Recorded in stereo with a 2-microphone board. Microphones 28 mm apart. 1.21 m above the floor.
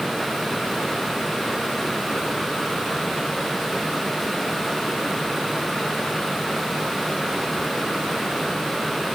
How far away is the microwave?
I don't hear a microwave.